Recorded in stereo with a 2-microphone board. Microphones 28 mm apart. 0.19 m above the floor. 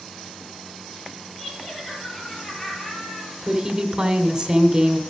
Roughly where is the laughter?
Left.